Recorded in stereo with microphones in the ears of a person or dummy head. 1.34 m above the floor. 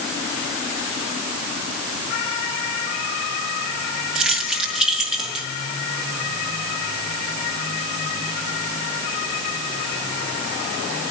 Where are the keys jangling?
Centre (ahead or behind), 1.0 m.